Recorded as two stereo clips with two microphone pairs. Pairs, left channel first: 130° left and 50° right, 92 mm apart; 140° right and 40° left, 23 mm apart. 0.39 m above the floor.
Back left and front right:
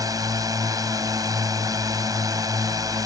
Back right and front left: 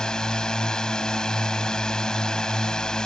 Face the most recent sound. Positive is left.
turn(degrees=-95)